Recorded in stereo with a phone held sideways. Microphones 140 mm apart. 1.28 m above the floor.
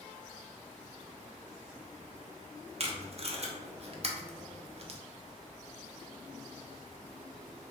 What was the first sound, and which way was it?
Tape being pulled, 45° right (ahead or behind).